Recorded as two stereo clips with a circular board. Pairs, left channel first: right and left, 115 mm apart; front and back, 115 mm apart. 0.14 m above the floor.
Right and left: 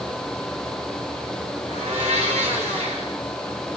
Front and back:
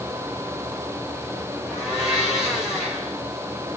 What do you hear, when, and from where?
1.7 s a blender: 95° left, 2.5 m